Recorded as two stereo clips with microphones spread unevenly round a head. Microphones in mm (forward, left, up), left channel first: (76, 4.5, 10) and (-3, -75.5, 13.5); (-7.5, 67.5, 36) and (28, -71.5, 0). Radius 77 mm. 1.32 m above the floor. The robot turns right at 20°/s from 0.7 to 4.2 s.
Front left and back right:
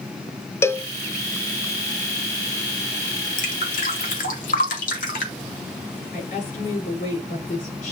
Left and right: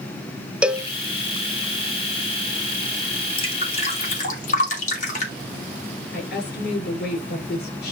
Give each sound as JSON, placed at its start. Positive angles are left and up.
{"t": 0.6, "sound": "a cowbell", "azimuth_deg": -10, "distance_m": 0.6}
{"t": 3.4, "sound": "dripping", "azimuth_deg": 50, "distance_m": 2.5}
{"t": 6.1, "sound": "a woman speaking", "azimuth_deg": 80, "distance_m": 5.5}